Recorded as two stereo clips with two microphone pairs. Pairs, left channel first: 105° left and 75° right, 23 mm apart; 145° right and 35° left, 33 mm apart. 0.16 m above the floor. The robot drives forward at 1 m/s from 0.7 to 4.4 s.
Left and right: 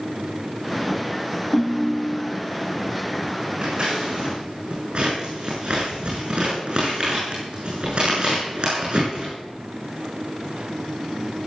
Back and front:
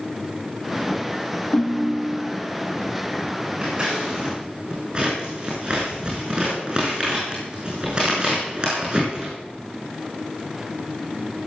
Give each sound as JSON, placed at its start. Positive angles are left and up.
{"t": 1.5, "sound": "a ringtone", "azimuth_deg": -160, "distance_m": 1.0}
{"t": 3.6, "sound": "scissors", "azimuth_deg": -30, "distance_m": 8.0}